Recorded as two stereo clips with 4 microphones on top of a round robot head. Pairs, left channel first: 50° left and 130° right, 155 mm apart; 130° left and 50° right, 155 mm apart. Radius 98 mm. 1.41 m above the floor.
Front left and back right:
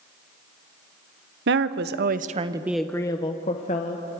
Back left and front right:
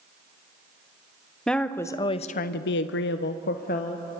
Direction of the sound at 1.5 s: 140° right.